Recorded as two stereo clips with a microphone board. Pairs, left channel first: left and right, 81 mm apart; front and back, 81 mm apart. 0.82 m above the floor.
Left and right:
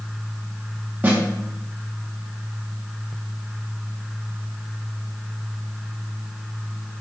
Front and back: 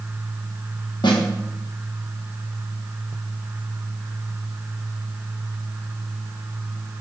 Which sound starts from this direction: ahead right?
A snare drum, at 1.0 s.